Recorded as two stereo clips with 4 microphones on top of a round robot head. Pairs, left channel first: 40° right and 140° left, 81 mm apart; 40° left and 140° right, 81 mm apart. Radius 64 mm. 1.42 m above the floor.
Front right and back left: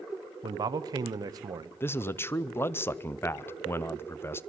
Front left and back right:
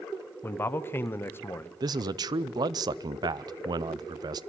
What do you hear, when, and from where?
0.4 s a man speaking: 100° left, 0.9 m
1.8 s a man speaking: 100° right, 0.6 m